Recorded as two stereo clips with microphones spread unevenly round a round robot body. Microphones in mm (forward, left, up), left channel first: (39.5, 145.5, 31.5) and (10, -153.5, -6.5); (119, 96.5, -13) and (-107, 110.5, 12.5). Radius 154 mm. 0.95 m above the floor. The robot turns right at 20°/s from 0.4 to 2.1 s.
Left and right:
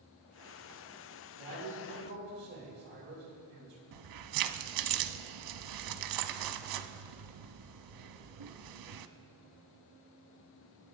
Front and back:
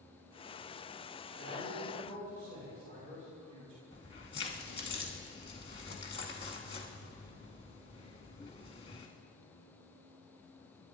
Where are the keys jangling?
75° right, 0.9 m.